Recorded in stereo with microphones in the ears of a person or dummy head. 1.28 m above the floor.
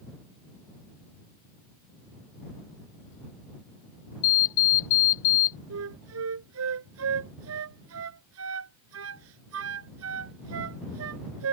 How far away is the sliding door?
I don't hear a sliding door.